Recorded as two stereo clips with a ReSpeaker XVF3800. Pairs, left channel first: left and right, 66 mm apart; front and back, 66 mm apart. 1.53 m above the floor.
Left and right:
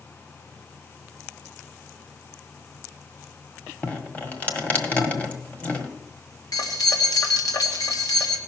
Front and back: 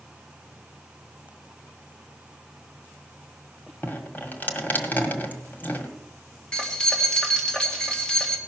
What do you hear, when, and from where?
3.8 s dripping: 40° left, 1.6 m
6.5 s keys jangling: 75° left, 2 m